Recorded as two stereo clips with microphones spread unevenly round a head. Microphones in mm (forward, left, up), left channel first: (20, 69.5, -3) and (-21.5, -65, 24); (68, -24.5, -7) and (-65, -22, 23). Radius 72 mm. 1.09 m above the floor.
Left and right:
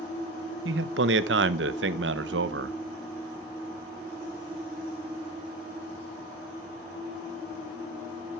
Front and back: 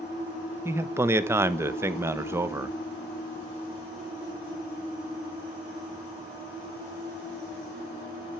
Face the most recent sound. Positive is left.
turn(degrees=-105)